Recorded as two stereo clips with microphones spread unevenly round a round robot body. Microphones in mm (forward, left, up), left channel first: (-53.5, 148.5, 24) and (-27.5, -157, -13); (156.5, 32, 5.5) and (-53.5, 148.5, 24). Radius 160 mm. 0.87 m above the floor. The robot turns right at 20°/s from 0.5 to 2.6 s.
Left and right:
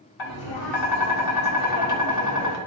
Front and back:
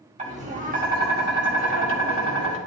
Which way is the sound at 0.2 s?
90° left.